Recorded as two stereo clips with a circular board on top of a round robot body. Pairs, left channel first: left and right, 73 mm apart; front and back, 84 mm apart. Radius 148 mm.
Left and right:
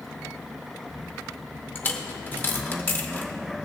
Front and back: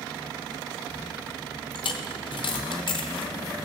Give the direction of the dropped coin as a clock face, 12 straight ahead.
11 o'clock.